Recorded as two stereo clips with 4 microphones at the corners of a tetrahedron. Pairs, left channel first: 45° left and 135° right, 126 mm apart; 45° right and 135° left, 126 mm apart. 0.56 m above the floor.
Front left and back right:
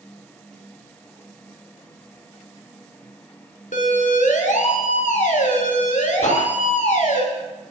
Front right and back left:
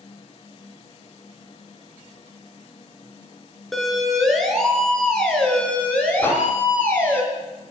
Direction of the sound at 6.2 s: 25° left.